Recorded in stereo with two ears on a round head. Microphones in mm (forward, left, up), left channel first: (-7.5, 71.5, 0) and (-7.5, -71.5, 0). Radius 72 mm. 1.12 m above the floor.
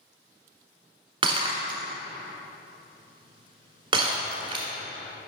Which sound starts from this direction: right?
Breaking glass, at 1.2 s.